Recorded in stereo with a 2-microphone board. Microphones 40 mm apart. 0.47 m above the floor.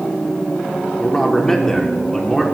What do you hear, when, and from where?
1.0 s a man speaking: 10° left (ahead or behind), 1.1 m